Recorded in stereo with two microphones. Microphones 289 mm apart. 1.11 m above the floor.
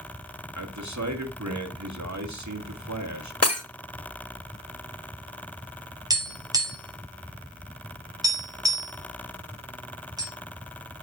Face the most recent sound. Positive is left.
turn(degrees=-10)  # may be behind; listen again after turning